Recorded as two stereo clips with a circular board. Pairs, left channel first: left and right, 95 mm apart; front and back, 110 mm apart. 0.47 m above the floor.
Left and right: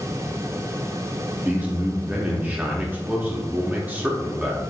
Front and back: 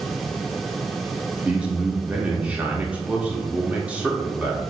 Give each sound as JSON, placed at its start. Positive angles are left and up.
{"t": 1.4, "sound": "a man speaking", "azimuth_deg": -125, "distance_m": 0.7}